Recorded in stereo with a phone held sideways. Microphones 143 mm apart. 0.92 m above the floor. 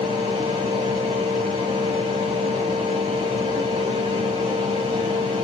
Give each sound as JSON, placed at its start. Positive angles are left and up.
{"t": 0.0, "sound": "a fan", "side_deg": -40, "distance_m": 1.3}